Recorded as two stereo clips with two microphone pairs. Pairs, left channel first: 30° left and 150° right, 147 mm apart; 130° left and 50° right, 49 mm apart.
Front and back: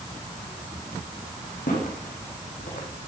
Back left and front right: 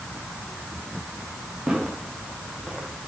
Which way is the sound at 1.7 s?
20° left.